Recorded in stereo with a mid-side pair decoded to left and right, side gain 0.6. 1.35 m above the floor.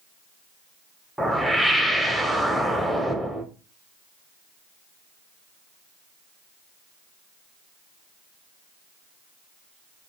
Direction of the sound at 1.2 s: Straight ahead.